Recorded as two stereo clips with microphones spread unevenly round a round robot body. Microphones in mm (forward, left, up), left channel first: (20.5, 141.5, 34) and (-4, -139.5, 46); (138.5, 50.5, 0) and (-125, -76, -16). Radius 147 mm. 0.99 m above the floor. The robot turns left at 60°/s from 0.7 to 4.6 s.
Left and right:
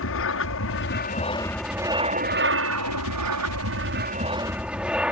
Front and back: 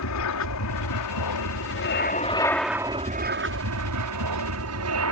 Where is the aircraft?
50° left; by 5.1 s straight behind.